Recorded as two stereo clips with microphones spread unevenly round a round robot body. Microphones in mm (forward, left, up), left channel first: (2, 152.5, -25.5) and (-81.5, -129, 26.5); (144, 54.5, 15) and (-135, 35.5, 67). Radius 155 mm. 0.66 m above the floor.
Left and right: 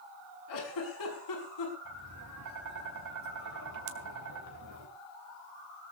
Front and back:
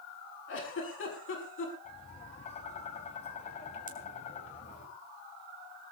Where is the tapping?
65° right, 4 m.